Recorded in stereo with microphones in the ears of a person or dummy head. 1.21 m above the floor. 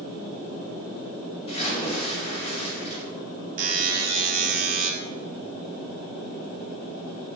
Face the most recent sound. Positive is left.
turn(degrees=-45)  # may be behind; listen again after turning